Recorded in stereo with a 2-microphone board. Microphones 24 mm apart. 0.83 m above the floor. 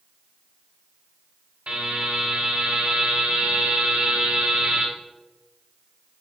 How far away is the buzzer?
About 3 m.